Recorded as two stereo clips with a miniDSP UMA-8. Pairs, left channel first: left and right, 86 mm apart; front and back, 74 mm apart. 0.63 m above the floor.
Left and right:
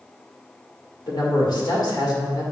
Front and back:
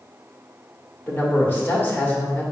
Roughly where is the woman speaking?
Ahead left.